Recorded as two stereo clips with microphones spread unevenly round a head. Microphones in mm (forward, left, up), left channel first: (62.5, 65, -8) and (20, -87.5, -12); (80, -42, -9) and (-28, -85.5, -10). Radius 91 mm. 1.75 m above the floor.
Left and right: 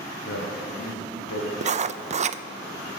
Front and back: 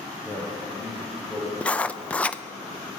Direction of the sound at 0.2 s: 105° left.